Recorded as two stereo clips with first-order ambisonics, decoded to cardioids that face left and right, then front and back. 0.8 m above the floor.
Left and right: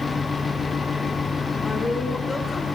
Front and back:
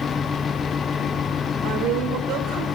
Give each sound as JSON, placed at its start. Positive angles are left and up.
{"t": 1.6, "sound": "a woman speaking", "azimuth_deg": 165, "distance_m": 2.0}